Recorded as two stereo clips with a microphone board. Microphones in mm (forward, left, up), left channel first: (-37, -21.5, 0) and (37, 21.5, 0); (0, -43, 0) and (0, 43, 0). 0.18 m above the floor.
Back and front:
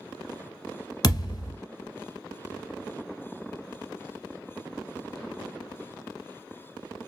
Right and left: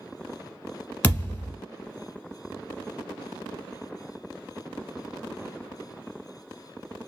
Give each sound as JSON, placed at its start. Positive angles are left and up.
{"t": 1.0, "sound": "a thud", "azimuth_deg": -160, "distance_m": 0.9}